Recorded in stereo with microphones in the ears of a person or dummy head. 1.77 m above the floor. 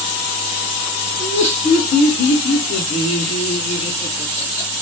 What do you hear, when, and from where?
1.2 s laughter: 25° left (ahead or behind), 1.6 m